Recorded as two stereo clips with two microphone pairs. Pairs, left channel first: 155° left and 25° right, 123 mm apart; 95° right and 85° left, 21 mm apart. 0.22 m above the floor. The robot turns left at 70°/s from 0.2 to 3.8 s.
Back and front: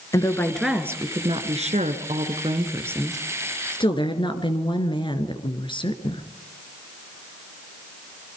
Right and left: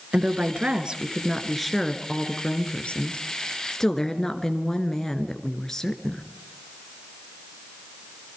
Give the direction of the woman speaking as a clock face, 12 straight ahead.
9 o'clock.